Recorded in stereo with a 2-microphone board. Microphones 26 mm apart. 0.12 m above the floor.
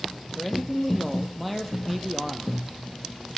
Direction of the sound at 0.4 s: 10° left (ahead or behind).